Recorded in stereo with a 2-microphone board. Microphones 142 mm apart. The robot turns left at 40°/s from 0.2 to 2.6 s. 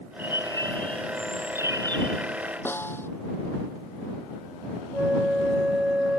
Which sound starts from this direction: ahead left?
A bird, at 0.2 s.